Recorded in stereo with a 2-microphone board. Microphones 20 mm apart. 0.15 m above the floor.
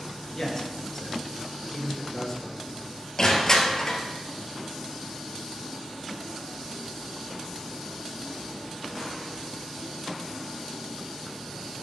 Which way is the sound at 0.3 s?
10° left (ahead or behind).